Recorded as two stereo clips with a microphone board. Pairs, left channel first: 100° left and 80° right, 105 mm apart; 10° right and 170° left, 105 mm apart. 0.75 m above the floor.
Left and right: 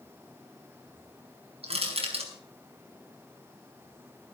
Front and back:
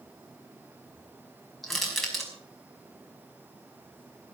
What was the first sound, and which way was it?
Crushing, 100° right.